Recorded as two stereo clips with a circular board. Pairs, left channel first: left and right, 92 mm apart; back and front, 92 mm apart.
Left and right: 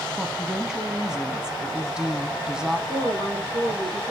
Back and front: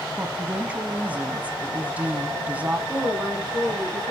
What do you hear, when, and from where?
0.2 s a woman speaking: 25° right, 1.0 m
2.9 s a woman speaking: 90° right, 5.5 m